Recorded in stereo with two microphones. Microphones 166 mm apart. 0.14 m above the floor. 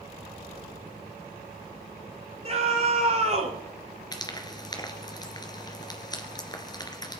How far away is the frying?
About 2 m.